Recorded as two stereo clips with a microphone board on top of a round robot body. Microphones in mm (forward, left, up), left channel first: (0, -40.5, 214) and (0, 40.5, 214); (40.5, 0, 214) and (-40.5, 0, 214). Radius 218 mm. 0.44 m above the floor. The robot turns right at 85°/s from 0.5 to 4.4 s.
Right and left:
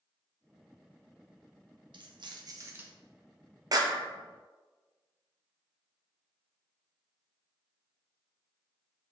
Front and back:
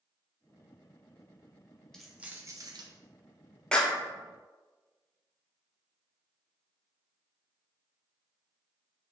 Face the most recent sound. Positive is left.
turn(degrees=130)